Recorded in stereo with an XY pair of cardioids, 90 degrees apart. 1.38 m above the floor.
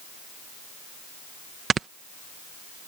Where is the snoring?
55° right.